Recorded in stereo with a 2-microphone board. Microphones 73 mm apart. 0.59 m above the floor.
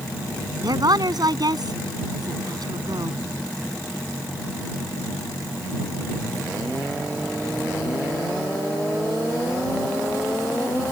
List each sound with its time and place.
0.6 s a woman speaking: 65° right (ahead or behind)